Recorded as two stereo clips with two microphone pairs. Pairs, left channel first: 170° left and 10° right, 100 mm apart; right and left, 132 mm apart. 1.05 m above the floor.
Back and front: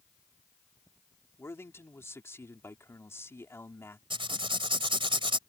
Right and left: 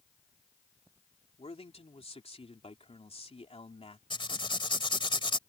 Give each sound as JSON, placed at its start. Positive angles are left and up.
{"t": 1.4, "sound": "a man speaking", "azimuth_deg": -130}
{"t": 4.1, "sound": "writing", "azimuth_deg": -40}